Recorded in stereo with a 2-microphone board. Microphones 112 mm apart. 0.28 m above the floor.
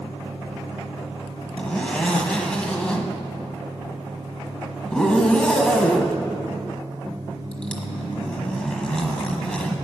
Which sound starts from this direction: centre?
A zipper, at 1.6 s.